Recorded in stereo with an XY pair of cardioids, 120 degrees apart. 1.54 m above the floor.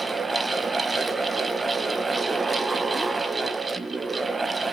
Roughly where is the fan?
Ahead.